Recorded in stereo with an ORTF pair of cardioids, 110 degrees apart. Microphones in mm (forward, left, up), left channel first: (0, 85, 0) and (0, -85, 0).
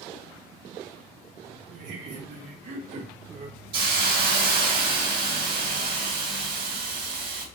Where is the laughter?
50° right, 1.6 m; by 3.6 s 35° right, 0.6 m.